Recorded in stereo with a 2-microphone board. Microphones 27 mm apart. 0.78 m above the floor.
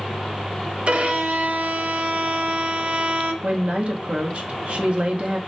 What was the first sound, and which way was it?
A violin, 55° right (ahead or behind).